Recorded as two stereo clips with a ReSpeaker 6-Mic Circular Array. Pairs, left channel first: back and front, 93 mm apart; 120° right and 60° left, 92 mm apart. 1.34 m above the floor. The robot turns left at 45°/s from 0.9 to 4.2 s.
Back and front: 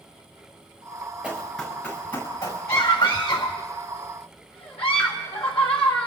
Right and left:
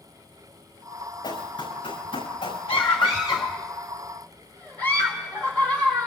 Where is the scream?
120° right, 2.5 m; by 6.1 s 170° left, 2.5 m.